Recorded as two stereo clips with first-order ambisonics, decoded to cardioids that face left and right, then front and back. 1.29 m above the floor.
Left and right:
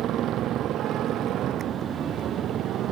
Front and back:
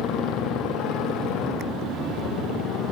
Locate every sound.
0.0 s a motorcycle: 40° right